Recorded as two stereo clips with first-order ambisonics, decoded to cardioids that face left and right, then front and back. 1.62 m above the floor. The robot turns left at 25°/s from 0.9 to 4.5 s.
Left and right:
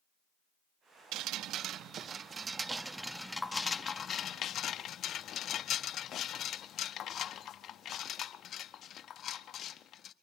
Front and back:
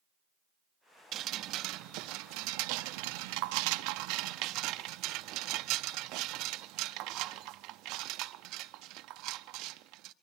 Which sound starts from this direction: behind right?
Dripping, at 1.1 s.